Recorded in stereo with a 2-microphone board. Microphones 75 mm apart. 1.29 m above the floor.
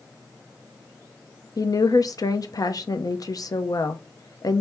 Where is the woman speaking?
55° left (ahead or behind), 0.6 m.